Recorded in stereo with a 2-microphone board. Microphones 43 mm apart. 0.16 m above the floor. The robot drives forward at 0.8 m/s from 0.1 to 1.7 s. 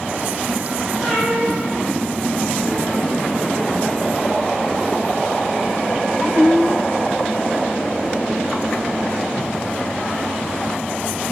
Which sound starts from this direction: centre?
A cat meowing, at 1.0 s.